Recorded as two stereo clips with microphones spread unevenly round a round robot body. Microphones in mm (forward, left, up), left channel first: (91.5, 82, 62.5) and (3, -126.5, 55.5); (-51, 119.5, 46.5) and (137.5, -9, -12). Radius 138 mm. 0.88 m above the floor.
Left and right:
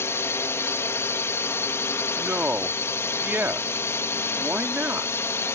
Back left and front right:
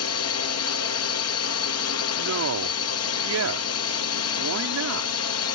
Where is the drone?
145° left.